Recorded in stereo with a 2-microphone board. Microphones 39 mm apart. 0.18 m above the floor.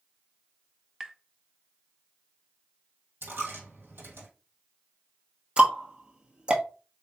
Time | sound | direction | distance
1.0 | tapping | 15° right (ahead or behind) | 0.5 m
3.2 | a dropped coin | 70° right (ahead or behind) | 2 m
5.6 | ticking | 30° right (ahead or behind) | 1.1 m